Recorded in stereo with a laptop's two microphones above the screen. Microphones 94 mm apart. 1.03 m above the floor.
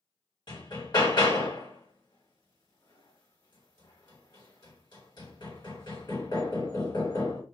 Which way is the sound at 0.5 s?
50° left (ahead or behind).